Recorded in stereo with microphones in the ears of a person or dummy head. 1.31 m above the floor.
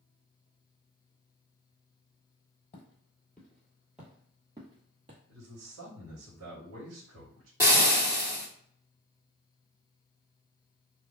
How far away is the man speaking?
About 1.5 m.